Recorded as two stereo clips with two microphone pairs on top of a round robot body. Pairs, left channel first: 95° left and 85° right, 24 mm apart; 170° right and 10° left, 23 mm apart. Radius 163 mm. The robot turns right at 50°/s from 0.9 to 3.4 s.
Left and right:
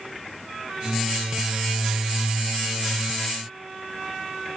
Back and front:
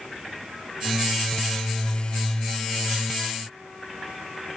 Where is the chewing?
I don't hear chewing.